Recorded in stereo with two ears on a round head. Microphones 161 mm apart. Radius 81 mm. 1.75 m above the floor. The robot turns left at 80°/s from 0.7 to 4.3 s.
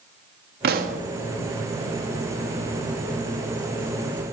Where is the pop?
60° right (ahead or behind), 0.8 m; by 1.0 s 40° right (ahead or behind), 0.8 m.